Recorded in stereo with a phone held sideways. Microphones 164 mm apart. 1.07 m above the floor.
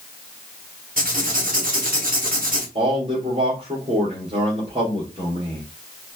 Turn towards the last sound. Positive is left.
turn(degrees=-35)  # may be behind; listen again after turning